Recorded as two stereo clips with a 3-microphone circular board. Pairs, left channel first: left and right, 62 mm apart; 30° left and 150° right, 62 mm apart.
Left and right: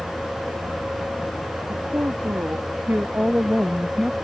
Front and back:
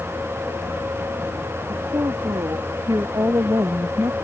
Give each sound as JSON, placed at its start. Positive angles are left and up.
{"t": 1.7, "sound": "a woman speaking", "azimuth_deg": -140}